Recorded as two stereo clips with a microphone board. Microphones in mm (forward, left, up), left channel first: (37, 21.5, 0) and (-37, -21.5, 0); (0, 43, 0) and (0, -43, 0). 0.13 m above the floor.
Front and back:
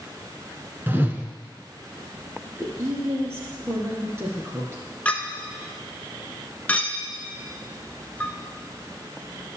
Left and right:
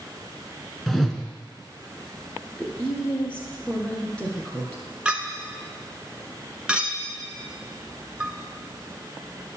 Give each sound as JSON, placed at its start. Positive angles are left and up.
{"t": 0.9, "sound": "a whoosh", "azimuth_deg": 180, "distance_m": 1.1}
{"t": 2.4, "sound": "a woman speaking", "azimuth_deg": 165, "distance_m": 2.0}
{"t": 5.0, "sound": "a clink", "azimuth_deg": -25, "distance_m": 0.7}